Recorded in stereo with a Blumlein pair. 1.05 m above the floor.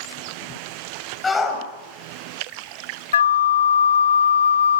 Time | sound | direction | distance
1.2 | a shout | 15° left | 6 m
3.1 | a flute | 65° left | 0.5 m